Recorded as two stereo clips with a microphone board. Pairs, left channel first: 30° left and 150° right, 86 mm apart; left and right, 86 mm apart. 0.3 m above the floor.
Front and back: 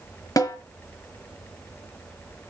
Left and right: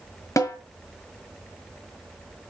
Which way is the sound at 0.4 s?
55° left.